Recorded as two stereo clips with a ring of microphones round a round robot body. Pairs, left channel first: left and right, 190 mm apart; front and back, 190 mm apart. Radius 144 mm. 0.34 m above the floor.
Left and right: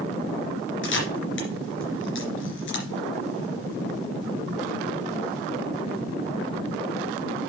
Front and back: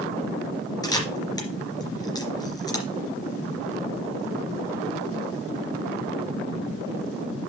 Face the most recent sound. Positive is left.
turn(degrees=70)